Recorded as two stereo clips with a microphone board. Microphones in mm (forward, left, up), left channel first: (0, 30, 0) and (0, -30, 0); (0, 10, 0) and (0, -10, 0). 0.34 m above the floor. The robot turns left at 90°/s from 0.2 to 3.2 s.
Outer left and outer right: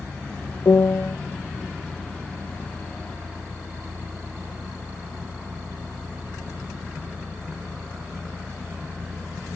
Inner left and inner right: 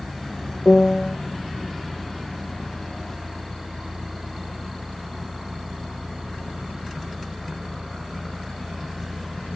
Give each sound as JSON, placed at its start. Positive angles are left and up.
{"t": 0.7, "sound": "a piano", "azimuth_deg": 90, "distance_m": 0.5}